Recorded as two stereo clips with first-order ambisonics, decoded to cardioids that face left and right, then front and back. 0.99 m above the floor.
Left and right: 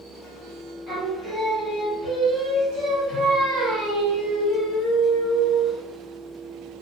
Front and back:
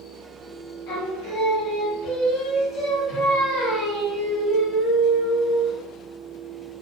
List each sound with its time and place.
0.9 s singing: 20° right, 1.9 m